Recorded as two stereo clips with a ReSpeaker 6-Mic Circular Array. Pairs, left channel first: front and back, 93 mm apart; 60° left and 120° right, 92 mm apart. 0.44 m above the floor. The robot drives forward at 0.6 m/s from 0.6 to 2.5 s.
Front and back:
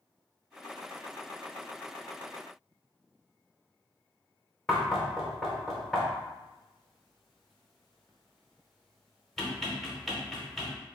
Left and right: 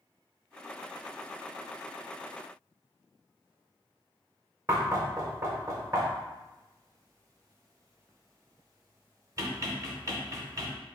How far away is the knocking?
About 0.7 m.